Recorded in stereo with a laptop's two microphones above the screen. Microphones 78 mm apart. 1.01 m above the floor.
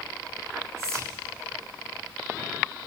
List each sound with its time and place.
0.8 s whispering: 40° right (ahead or behind), 0.8 m